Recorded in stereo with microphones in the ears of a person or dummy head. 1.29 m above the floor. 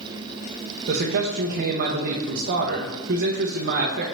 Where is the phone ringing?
No phone ringing in this recording.